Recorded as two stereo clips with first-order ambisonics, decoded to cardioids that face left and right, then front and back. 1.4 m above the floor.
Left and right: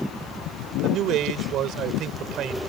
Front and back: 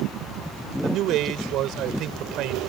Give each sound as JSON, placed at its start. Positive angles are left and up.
{"t": 0.8, "sound": "a man speaking", "azimuth_deg": -140}